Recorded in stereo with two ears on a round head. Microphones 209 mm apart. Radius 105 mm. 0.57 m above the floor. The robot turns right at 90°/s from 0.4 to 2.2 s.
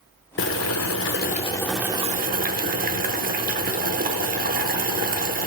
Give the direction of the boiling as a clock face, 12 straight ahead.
10 o'clock.